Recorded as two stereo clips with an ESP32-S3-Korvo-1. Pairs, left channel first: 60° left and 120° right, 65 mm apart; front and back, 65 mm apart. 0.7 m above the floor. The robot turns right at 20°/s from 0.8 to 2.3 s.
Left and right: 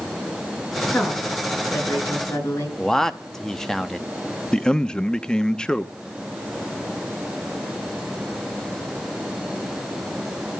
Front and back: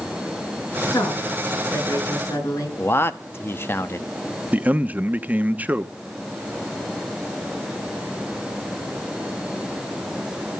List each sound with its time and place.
0.9 s a woman speaking: 15° right, 7.5 m; by 2.7 s 10° left, 7.5 m
2.8 s a man speaking: 20° right, 0.8 m
4.5 s a man speaking: 135° left, 0.8 m